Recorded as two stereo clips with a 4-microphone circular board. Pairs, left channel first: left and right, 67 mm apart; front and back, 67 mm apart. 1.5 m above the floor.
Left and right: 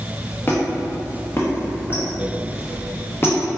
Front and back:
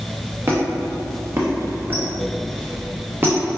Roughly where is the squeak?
Behind left.